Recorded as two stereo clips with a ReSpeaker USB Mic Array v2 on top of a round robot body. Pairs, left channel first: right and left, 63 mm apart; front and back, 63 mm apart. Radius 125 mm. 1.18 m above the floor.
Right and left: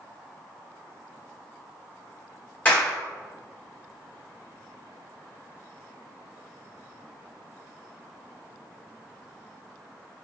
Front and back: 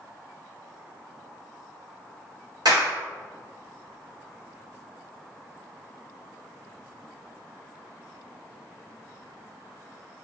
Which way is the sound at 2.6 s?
155° right.